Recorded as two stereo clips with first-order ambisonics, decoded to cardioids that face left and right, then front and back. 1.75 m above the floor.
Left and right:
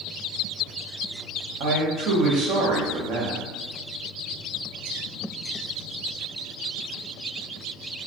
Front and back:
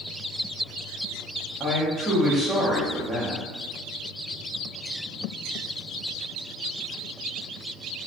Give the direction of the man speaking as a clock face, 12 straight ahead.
3 o'clock.